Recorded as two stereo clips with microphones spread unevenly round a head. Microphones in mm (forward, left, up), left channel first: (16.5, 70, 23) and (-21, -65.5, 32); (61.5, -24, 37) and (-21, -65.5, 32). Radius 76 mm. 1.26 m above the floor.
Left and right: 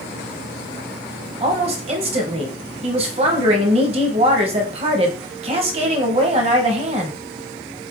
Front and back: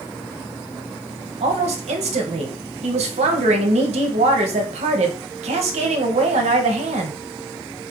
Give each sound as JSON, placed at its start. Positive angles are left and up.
{"t": 1.4, "sound": "a woman speaking", "azimuth_deg": -155, "distance_m": 0.8}